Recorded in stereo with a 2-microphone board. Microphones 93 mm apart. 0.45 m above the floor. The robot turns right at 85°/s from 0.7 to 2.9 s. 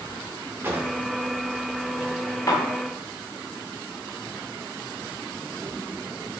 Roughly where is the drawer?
Right.